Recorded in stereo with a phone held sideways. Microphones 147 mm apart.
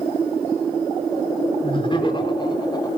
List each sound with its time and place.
1.6 s laughter: 35° left (ahead or behind), 5 m; by 2.9 s 25° left (ahead or behind), 4.5 m